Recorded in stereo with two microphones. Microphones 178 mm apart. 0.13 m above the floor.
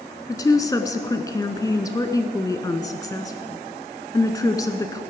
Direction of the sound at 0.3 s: 20° left (ahead or behind).